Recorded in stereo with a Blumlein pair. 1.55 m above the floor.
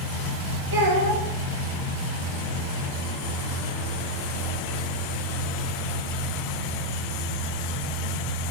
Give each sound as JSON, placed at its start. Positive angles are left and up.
{"t": 0.7, "sound": "a child speaking", "azimuth_deg": -70, "distance_m": 1.3}